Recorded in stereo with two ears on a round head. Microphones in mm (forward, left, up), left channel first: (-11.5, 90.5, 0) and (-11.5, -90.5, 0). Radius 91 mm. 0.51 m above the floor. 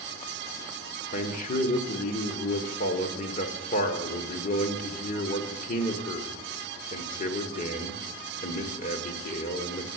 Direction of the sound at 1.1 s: 40° left (ahead or behind).